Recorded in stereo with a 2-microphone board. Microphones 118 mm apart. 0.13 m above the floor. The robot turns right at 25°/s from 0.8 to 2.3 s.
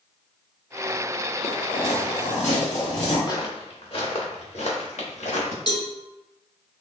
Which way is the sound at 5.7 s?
40° left (ahead or behind).